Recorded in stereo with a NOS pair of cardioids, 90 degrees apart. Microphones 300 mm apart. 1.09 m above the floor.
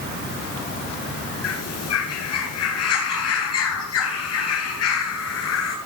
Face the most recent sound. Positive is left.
turn(degrees=60)